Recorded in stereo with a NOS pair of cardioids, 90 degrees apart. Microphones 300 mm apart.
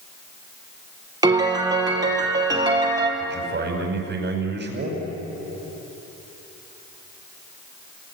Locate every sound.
1.2 s a piano: 15° right, 4.5 m
3.2 s a man speaking: 35° right, 5 m